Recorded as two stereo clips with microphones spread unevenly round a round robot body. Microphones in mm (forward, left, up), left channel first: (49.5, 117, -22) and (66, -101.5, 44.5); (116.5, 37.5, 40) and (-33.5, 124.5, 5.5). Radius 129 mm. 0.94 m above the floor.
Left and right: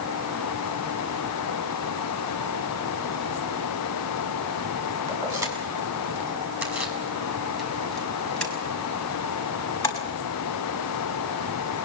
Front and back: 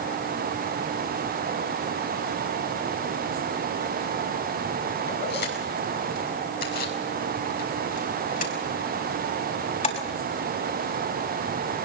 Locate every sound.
5.1 s keys jangling: 10° right, 7 m; by 10.2 s 20° left, 5.5 m